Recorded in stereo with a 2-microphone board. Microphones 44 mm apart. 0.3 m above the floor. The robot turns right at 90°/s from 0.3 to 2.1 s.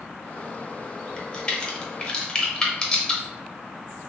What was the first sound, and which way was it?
A crack, 15° left (ahead or behind).